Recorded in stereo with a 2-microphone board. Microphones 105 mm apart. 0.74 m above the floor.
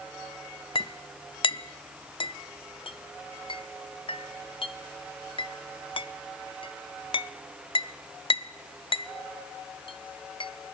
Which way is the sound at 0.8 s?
60° left (ahead or behind).